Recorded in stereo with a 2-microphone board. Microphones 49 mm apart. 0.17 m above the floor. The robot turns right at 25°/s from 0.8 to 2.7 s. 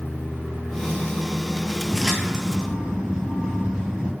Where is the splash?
5° left (ahead or behind), 0.7 m; by 4.1 s 15° right (ahead or behind), 0.7 m.